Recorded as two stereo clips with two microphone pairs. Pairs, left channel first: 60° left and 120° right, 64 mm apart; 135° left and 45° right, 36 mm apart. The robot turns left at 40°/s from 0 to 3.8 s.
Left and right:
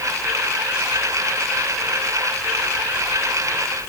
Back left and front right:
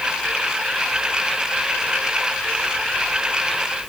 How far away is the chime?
I don't hear a chime.